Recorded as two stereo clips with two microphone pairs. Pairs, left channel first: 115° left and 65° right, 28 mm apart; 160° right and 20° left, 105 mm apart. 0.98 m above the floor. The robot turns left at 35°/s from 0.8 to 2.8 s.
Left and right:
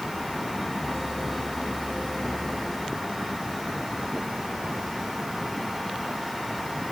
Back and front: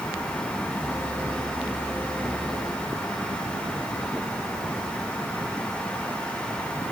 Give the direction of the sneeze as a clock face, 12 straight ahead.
I don't hear a sneeze.